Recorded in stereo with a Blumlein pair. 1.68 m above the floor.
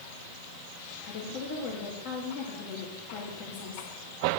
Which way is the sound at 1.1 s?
40° left.